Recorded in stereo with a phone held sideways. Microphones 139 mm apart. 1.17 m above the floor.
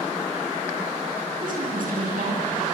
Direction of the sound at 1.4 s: 85° right.